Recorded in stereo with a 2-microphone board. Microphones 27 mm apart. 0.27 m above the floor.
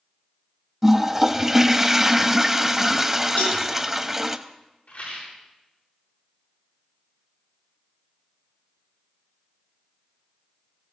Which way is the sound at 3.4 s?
75° left (ahead or behind).